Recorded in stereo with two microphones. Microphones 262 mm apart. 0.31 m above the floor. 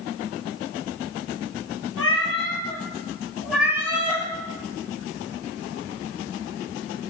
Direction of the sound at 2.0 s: 55° left (ahead or behind).